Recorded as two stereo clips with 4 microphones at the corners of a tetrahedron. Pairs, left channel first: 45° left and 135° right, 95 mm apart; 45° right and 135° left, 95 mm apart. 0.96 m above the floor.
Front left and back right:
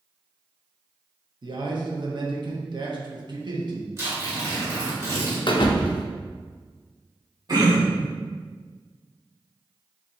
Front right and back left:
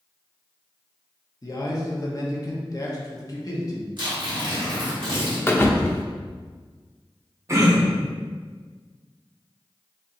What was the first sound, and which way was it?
A man speaking, 95° right.